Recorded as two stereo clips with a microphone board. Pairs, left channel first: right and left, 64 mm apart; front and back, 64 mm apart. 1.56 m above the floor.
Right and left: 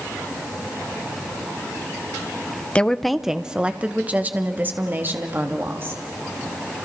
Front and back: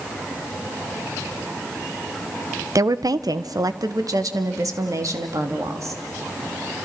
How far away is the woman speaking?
About 0.7 m.